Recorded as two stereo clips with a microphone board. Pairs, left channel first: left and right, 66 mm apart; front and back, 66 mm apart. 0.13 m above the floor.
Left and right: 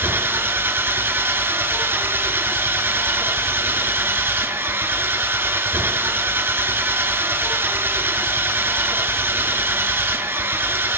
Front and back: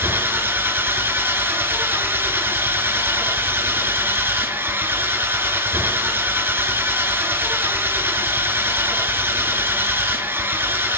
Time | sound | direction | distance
0.0 | an engine running | 130° right | 2 m